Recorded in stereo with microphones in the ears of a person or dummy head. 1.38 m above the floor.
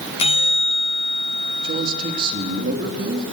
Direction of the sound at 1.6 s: 45° right (ahead or behind).